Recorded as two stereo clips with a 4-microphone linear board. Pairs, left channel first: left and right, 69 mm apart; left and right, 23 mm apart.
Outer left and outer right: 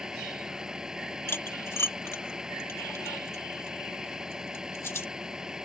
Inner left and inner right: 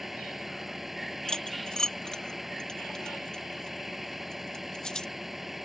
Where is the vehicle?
10° right (ahead or behind).